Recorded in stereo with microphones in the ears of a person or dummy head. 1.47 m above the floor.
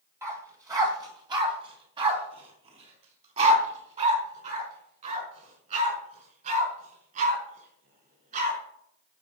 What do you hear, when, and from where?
0.2 s a dog barking: 15° right (ahead or behind), 2 m; by 8.6 s 45° right (ahead or behind), 6.5 m